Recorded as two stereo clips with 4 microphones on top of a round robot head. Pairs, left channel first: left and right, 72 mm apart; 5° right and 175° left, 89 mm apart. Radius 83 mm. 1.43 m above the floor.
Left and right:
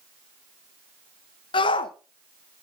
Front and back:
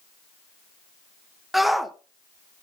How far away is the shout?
About 1.1 m.